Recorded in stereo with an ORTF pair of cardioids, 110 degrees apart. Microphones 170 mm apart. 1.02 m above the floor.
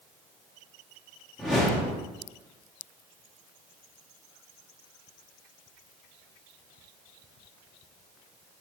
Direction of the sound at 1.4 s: Straight ahead.